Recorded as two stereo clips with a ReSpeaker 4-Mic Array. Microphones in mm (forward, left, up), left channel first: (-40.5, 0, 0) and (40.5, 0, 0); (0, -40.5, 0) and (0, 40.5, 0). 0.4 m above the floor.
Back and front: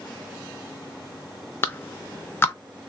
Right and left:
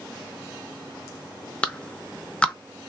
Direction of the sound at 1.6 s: 155° right.